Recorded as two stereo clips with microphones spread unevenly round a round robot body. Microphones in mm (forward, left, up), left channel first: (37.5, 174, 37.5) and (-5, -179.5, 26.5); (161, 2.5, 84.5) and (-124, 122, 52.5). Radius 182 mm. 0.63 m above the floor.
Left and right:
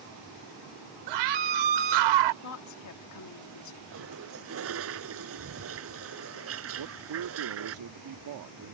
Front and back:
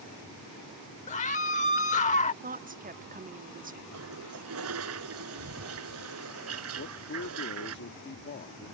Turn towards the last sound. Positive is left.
turn(degrees=-75)